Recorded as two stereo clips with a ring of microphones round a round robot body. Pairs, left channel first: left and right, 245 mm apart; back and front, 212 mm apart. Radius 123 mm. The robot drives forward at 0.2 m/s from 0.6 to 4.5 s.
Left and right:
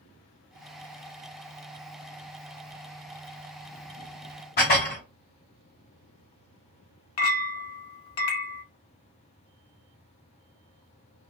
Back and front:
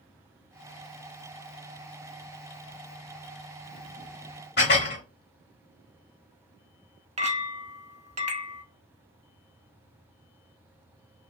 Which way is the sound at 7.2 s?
55° left.